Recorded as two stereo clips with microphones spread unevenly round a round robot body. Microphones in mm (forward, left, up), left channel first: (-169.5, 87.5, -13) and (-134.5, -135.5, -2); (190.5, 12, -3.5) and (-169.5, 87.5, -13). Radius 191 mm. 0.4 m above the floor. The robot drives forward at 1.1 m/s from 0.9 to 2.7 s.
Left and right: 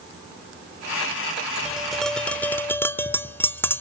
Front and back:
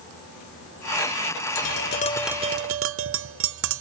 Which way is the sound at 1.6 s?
5° left.